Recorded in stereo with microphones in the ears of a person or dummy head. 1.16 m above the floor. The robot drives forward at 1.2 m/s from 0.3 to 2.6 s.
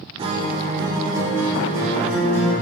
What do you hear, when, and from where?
0.2 s a guitar: 30° right (ahead or behind), 1.7 m; by 2.5 s 10° right (ahead or behind), 4 m